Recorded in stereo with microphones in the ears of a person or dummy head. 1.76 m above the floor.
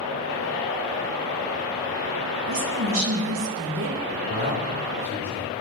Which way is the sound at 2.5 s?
70° right (ahead or behind).